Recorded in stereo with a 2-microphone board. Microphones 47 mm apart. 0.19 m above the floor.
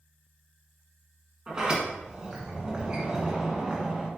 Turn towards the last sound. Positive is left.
turn(degrees=-20)  # may be behind; listen again after turning